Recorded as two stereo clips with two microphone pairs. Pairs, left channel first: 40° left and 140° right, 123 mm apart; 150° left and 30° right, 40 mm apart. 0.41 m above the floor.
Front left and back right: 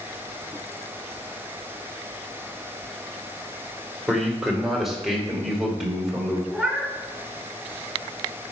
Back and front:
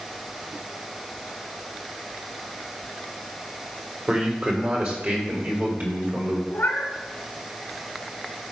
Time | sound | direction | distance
4.1 | a man speaking | 50° right | 1.5 m
6.5 | a cat meowing | 125° left | 1.0 m